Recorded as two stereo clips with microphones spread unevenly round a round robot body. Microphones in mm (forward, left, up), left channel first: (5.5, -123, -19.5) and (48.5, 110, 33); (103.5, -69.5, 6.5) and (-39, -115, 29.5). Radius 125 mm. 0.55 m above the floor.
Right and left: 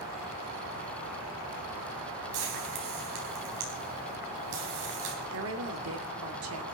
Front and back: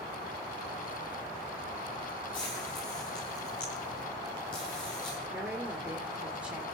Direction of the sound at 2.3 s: 85° left.